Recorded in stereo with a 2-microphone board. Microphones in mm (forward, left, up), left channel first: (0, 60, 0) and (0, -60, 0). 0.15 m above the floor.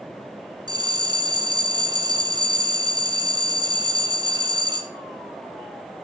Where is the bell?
40° right (ahead or behind), 1.2 m.